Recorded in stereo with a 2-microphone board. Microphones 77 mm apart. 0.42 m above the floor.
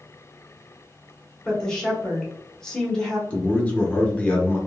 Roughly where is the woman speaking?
Centre.